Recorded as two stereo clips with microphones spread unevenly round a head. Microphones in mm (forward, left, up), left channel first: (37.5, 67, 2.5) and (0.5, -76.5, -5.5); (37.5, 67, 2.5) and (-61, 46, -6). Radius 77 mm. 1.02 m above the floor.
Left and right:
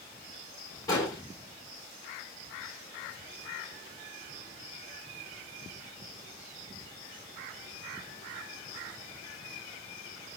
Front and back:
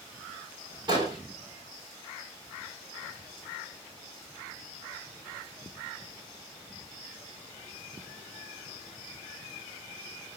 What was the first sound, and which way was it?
An explosion, 145° left.